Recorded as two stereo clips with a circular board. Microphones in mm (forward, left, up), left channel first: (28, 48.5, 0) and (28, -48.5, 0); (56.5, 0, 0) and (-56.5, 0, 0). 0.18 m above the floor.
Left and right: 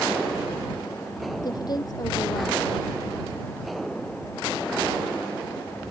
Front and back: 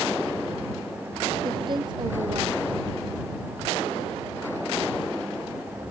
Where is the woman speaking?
135° left.